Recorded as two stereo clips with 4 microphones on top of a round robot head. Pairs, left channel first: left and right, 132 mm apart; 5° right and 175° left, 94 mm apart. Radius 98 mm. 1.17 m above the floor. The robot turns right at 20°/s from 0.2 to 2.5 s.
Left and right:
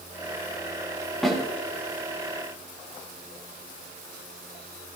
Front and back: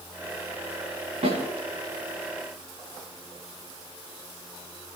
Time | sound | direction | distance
1.2 | a snare drum | straight behind | 6.5 m